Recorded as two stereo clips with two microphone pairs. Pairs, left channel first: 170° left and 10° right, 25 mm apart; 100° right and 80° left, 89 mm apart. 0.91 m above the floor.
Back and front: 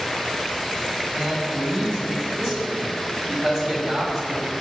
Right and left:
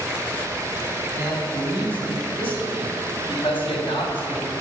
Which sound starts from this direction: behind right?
A man speaking, at 1.1 s.